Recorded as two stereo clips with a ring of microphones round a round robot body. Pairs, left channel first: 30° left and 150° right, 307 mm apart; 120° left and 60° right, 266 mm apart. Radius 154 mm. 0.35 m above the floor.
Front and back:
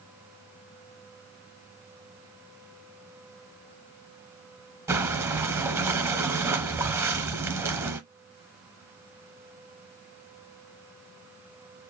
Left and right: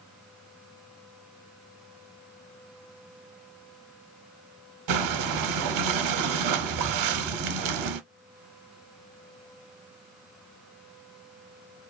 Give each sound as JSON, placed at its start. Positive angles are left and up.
{"t": 4.9, "sound": "breathing", "azimuth_deg": -70, "distance_m": 0.6}